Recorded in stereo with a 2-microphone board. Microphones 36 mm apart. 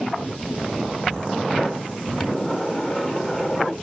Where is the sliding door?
25° left (ahead or behind), 4 m.